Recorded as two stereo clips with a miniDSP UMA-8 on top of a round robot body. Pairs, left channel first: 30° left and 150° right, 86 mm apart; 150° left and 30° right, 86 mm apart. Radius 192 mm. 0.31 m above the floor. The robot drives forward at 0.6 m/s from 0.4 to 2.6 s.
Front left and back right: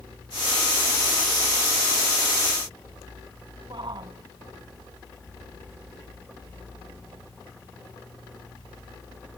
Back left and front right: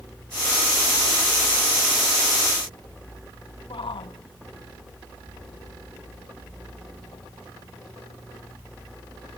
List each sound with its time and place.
3.7 s a shout: 175° left